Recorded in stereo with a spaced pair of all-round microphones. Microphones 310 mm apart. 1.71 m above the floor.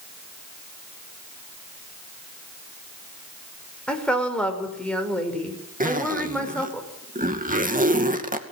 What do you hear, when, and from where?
3.9 s a woman speaking: 5° left (ahead or behind), 5.5 m
5.8 s a zipper: 25° right (ahead or behind), 2.5 m